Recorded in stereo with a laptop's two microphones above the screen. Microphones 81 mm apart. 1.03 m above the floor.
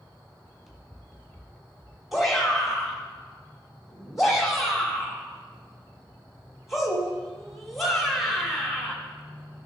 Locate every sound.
0.4 s running footsteps: centre (ahead or behind), 2 m; by 2.0 s 25° left (ahead or behind), 1.1 m
2.1 s a shout: centre (ahead or behind), 3 m